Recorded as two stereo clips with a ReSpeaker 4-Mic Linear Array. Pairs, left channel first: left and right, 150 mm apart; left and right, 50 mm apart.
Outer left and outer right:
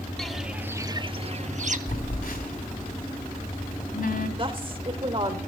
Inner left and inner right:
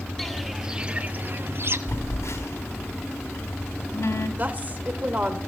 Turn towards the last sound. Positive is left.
turn(degrees=-35)  # may be behind; listen again after turning